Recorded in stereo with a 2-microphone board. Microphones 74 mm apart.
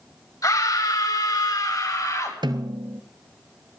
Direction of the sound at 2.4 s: 75° right (ahead or behind).